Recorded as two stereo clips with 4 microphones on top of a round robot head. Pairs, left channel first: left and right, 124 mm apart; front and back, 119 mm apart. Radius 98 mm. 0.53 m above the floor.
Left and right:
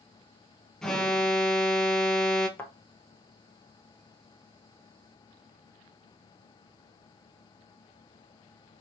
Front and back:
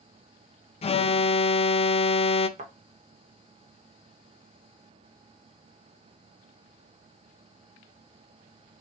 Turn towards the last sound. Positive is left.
turn(degrees=165)